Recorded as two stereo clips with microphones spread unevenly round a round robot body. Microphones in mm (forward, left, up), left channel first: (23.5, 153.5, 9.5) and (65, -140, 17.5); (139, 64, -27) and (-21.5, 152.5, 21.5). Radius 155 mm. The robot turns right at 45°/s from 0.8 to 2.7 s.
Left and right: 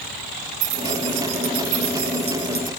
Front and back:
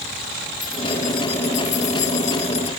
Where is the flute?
I don't hear a flute.